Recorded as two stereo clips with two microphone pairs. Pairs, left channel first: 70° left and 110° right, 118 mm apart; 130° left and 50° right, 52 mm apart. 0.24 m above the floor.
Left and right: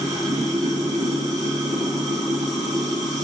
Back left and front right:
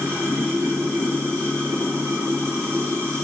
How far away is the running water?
About 2 m.